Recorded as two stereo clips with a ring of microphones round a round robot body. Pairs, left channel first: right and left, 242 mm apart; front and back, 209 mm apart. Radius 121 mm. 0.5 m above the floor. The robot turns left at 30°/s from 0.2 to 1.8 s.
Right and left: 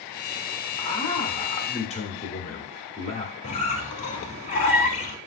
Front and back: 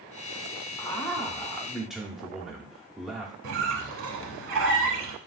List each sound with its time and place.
0.8 s a man speaking: 65° right, 0.8 m; by 3.3 s 95° right, 0.8 m
3.4 s a squeak: 150° right, 0.7 m